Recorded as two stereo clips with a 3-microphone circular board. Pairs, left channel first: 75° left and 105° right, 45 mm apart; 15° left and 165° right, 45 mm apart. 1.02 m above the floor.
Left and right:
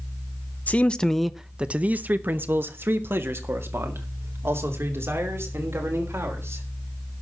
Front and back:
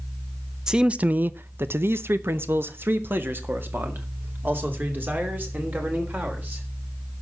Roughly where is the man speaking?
Behind left.